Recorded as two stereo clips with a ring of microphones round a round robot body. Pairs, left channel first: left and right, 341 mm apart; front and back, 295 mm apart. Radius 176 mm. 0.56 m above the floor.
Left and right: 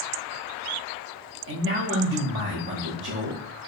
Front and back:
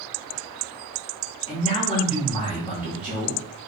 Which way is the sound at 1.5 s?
60° right.